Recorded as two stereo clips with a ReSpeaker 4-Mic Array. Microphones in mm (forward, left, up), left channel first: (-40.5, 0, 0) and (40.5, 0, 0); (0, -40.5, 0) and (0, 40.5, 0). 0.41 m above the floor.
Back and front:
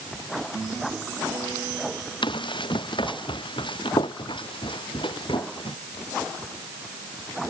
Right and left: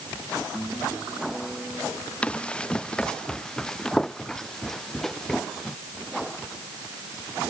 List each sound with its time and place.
2.2 s running footsteps: 165° right; by 5.8 s 175° right